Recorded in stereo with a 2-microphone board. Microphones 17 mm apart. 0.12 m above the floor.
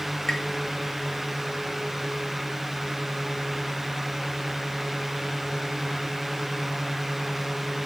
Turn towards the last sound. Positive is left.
turn(degrees=35)  # may be behind; listen again after turning